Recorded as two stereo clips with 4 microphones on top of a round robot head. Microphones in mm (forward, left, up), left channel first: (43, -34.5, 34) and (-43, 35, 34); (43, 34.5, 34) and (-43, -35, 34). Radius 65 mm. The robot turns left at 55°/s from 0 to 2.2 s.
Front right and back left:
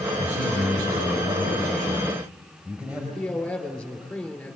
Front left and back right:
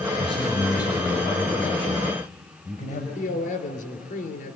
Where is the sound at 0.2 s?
175° left, 5.5 m; by 3.0 s 65° left, 5.5 m.